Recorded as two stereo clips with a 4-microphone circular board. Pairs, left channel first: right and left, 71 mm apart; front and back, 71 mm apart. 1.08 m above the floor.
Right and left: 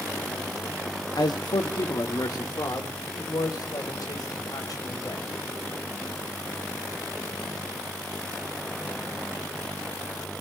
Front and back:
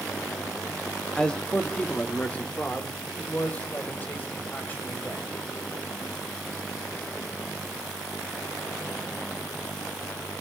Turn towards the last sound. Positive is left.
turn(degrees=-60)